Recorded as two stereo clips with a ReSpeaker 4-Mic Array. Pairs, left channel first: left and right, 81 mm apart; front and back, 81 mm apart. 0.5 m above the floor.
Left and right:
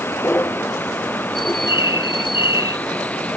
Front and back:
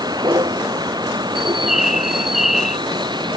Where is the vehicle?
150° left; by 3.4 s 160° left.